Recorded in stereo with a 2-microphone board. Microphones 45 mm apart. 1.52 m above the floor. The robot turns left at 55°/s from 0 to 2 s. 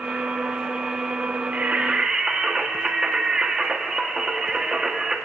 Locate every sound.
1.5 s singing: 45° right (ahead or behind), 1.1 m; by 5.2 s 20° right (ahead or behind), 1.1 m